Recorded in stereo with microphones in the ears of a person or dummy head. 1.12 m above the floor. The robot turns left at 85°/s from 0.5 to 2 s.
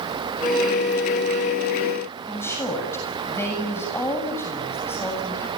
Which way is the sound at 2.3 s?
15° left (ahead or behind).